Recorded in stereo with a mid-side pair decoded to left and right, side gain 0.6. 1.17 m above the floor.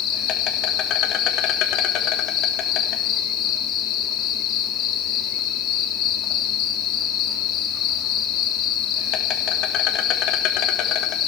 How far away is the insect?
About 2.5 m.